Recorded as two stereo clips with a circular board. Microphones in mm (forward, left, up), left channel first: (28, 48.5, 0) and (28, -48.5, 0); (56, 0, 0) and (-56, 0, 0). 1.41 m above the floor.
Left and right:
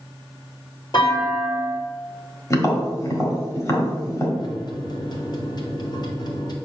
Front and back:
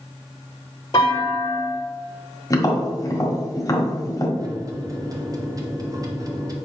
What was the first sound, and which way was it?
A clunk, 50° left.